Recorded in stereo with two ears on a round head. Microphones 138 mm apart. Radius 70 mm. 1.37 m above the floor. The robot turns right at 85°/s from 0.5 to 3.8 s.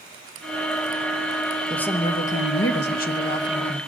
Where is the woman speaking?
Straight ahead, 1.1 m; by 3.8 s straight behind, 1.1 m.